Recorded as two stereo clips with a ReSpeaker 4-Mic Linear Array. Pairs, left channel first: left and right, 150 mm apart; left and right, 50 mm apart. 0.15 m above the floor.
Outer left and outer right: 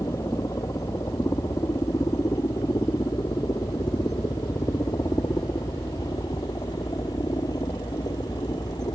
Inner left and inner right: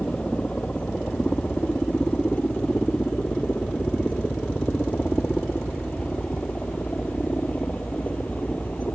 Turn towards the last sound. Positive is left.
turn(degrees=25)  # may be behind; listen again after turning